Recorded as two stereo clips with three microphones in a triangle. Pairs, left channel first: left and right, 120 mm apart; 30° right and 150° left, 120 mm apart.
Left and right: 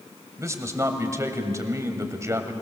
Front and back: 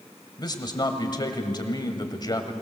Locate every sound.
0.4 s a man speaking: 45° right, 1.7 m